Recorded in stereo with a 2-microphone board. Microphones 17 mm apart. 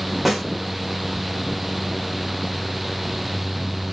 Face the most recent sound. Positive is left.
turn(degrees=-10)  # may be behind; listen again after turning